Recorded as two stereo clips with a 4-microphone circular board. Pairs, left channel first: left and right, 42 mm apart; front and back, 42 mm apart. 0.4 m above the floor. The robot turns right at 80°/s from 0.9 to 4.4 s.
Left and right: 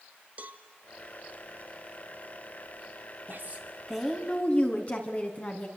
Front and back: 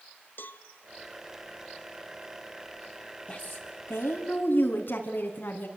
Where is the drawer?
No drawer in this recording.